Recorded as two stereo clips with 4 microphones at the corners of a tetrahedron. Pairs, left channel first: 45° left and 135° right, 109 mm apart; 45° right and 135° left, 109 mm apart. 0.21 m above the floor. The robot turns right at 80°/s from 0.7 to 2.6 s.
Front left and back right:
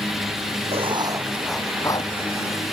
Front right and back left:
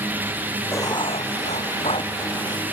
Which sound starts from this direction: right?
Writing, at 0.7 s.